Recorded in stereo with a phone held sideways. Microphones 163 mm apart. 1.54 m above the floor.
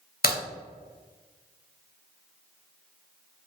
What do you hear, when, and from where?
0.2 s a crack: 65° left (ahead or behind), 0.8 m